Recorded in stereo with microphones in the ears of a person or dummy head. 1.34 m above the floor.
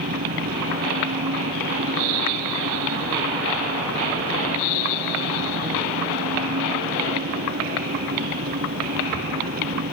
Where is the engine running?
50° right (ahead or behind).